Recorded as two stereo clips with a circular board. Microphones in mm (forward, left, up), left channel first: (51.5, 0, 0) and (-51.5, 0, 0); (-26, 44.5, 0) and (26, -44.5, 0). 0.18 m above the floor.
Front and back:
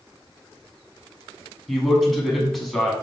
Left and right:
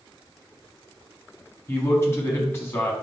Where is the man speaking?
90° left, 1.2 m.